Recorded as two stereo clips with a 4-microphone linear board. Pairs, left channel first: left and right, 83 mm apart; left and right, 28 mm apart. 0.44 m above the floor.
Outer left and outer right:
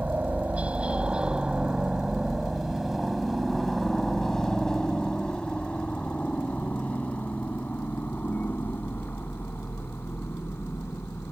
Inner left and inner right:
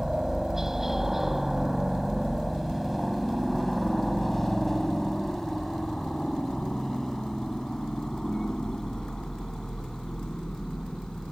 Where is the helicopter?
20° right (ahead or behind); by 11.3 s 30° left (ahead or behind).